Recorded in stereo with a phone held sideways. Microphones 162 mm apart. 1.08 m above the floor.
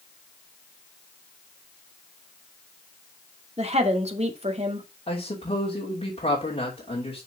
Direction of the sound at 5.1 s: 35° left (ahead or behind).